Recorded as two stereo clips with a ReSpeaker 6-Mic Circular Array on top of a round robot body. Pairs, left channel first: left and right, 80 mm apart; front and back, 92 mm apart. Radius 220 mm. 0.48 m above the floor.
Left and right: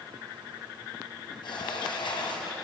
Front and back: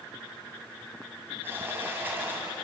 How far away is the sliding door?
About 3.5 m.